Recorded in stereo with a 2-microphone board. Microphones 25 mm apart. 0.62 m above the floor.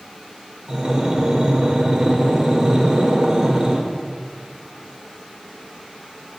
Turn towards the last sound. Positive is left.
turn(degrees=-25)  # may be behind; listen again after turning